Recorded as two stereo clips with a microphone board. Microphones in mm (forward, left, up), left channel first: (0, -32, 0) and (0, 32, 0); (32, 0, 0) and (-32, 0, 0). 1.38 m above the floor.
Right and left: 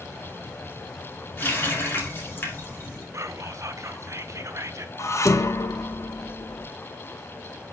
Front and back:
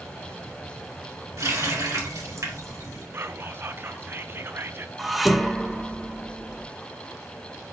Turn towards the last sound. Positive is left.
turn(degrees=-95)